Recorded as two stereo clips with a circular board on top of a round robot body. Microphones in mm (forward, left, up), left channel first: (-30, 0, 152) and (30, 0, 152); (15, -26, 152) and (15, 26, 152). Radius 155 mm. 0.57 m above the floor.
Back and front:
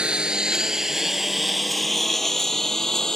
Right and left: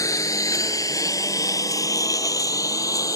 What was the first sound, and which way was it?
A lawn mower, 75° right.